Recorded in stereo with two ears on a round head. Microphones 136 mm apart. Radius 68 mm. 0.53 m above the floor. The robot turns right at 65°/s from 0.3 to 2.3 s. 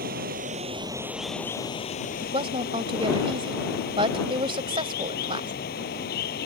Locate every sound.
0.0 s running water: 65° right; by 6.5 s 65° left
2.2 s a woman speaking: 40° right (ahead or behind); by 5.5 s 35° right (ahead or behind)